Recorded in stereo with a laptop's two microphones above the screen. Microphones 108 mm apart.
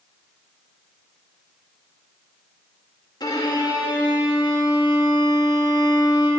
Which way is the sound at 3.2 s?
40° left (ahead or behind).